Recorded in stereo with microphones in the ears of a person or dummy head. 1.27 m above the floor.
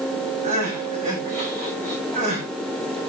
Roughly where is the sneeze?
I don't hear a sneeze.